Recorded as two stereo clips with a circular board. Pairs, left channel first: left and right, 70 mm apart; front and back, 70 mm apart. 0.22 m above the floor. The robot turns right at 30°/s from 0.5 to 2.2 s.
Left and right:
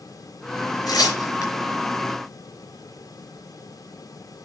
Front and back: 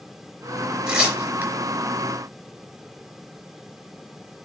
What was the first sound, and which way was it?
Tearing paper, 105° left.